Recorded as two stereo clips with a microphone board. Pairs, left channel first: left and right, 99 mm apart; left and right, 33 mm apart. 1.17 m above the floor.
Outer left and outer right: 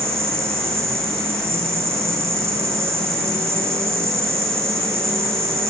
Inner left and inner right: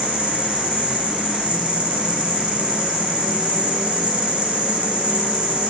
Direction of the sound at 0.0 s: 30° right (ahead or behind).